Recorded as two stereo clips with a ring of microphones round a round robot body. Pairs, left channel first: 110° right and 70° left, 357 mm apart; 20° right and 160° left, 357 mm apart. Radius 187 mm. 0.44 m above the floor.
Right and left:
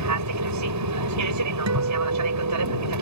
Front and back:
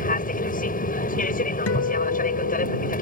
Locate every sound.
0.0 s an aircraft: 40° left
1.7 s a guitar: 25° left